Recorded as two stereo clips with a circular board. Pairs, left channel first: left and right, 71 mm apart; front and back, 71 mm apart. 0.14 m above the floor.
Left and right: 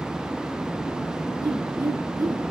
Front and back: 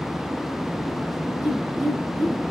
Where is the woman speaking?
95° right, 3 m.